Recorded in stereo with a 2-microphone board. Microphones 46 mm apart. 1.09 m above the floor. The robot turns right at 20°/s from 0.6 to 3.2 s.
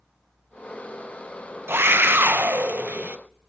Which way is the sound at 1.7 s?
65° right (ahead or behind).